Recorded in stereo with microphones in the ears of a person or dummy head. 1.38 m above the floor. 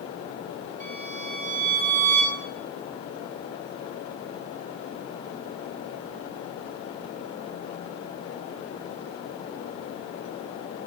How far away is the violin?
About 3 m.